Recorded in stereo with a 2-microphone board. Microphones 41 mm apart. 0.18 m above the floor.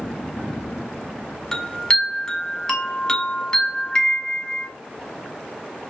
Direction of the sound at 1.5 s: 15° left (ahead or behind).